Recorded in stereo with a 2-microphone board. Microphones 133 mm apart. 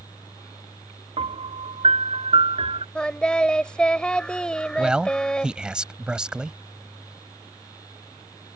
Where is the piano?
50° right (ahead or behind).